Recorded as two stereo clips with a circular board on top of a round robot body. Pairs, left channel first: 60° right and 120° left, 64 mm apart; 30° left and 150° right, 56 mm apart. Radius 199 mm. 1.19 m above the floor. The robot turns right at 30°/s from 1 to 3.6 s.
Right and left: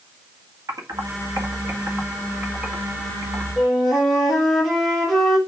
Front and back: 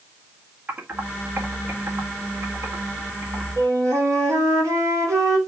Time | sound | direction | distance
0.7 | typing on a keyboard | 150° left | 1.7 m
3.6 | a flute | 150° right | 2.5 m